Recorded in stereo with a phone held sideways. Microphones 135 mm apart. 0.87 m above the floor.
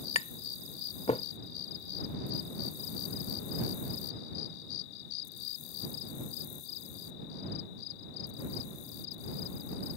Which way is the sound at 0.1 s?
55° left (ahead or behind).